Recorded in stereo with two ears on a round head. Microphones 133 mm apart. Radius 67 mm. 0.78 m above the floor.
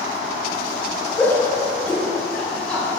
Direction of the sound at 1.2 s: 15° left (ahead or behind).